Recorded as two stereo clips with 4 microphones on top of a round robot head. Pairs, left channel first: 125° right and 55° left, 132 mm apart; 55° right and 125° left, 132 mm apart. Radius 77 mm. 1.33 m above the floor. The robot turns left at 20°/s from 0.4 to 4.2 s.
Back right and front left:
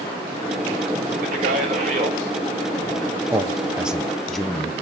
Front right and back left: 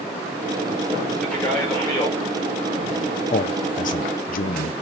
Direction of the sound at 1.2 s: 30° left.